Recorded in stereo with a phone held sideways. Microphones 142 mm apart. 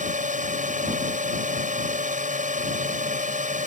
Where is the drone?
65° right (ahead or behind).